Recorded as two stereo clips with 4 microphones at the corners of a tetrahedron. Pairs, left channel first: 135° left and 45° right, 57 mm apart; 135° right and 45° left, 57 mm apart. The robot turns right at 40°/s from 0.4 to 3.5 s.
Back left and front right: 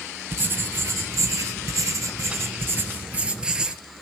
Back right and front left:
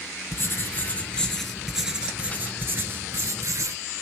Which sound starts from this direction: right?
Writing, at 0.3 s.